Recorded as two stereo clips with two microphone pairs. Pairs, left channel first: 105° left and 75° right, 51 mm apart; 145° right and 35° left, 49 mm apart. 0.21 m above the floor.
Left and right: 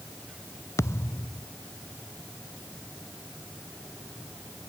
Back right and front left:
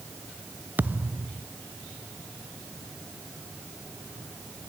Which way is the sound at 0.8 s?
90° left.